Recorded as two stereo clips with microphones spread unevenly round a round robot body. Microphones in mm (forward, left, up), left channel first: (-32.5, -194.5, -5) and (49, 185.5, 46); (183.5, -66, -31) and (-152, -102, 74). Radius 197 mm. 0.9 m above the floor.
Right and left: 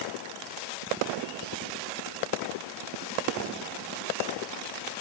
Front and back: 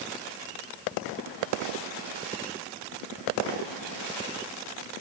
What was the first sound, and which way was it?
Only background noise.